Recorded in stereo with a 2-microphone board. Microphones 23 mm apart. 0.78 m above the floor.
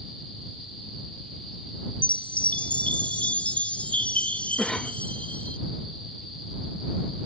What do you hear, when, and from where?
2.0 s a chime: 70° left (ahead or behind)
4.6 s a cough: 20° left (ahead or behind)